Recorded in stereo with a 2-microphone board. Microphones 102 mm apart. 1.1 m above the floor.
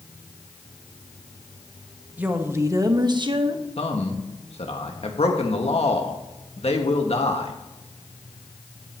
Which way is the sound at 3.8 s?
70° left (ahead or behind).